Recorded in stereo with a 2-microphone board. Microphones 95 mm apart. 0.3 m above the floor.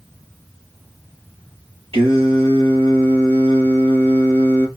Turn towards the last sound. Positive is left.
turn(degrees=-75)  # may be behind; listen again after turning